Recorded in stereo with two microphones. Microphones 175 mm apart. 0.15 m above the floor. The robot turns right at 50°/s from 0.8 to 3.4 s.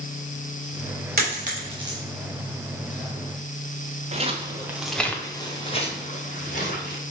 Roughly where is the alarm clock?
I don't hear an alarm clock.